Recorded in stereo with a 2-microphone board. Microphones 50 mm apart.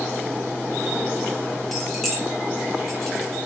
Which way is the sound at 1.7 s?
Centre (ahead or behind).